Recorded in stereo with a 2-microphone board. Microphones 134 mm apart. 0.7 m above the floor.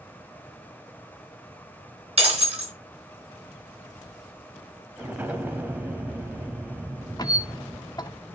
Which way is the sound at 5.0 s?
15° right (ahead or behind).